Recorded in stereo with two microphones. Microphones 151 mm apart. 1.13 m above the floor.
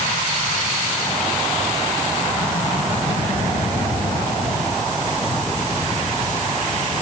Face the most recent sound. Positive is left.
No sound to turn to.